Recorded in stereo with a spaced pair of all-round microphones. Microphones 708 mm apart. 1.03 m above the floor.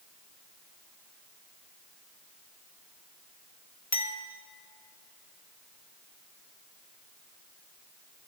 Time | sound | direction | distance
3.9 | a clink | 25° left (ahead or behind) | 1.1 m